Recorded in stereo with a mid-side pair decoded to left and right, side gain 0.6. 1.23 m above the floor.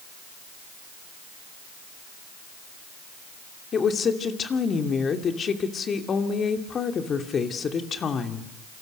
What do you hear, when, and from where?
3.7 s a woman speaking: 40° left, 2.5 m